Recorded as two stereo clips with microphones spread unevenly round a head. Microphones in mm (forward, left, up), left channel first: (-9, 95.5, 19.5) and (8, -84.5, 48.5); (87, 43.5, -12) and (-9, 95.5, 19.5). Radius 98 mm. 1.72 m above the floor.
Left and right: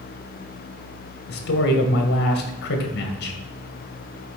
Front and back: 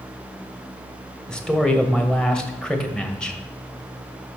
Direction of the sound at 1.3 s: 60° left.